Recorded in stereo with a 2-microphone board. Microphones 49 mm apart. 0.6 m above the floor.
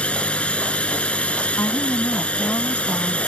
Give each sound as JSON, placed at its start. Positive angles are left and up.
{"t": 0.0, "sound": "a drone", "side_deg": 25}
{"t": 1.6, "sound": "a woman speaking", "side_deg": 65}